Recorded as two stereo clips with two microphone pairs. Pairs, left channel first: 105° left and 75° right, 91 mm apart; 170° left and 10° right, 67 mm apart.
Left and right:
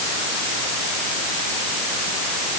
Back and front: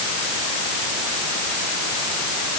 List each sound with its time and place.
Only background noise.